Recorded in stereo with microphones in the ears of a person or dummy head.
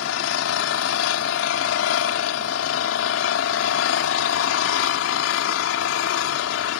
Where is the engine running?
80° left.